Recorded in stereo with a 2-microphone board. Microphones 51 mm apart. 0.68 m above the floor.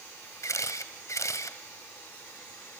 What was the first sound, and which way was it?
A camera shutter, 85° left.